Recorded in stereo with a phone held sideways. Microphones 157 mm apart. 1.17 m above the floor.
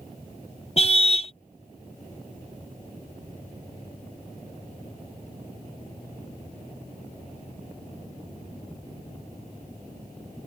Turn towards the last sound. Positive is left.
turn(degrees=40)  # may be behind; listen again after turning